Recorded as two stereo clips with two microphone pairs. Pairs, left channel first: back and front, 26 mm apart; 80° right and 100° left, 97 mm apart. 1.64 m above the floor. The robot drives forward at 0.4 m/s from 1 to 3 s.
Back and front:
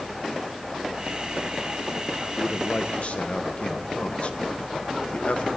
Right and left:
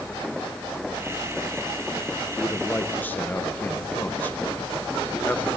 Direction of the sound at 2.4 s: 145° right.